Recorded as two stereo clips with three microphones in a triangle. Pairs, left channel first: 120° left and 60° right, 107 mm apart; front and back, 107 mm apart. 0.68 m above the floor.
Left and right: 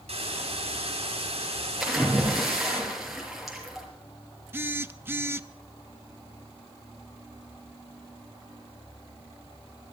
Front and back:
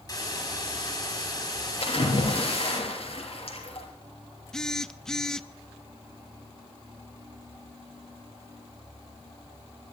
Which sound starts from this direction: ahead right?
A hiss, at 0.1 s.